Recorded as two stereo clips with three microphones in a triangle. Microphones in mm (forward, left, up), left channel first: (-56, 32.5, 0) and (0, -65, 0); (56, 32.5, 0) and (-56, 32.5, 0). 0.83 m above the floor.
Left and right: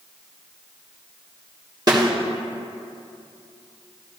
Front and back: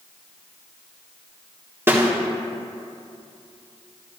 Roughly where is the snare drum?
Behind right.